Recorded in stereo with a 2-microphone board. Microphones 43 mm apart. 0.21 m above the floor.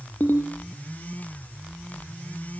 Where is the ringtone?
45° left (ahead or behind), 2.5 m.